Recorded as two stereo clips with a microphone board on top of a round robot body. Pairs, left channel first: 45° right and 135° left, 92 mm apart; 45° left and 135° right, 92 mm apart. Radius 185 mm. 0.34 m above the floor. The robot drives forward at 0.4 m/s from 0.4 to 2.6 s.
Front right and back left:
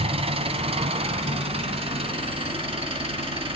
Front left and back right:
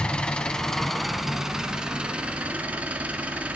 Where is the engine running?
125° left, 1.0 m; by 3.6 s 150° left, 1.6 m.